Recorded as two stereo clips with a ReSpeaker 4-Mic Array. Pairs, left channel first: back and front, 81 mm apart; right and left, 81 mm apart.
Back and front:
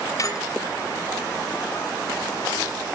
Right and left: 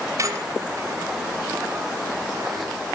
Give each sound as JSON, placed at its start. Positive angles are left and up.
{"t": 0.2, "sound": "a squeak", "azimuth_deg": 140, "distance_m": 2.0}